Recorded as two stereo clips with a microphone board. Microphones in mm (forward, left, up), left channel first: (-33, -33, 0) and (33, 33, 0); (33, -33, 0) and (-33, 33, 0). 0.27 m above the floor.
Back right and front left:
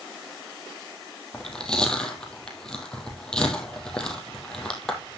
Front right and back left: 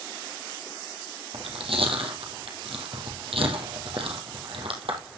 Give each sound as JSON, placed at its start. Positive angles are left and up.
{"t": 1.3, "sound": "chewing", "azimuth_deg": 145, "distance_m": 2.5}